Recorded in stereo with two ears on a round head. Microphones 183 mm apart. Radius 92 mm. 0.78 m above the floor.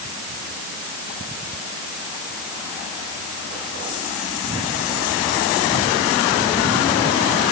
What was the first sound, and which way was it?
Only background noise.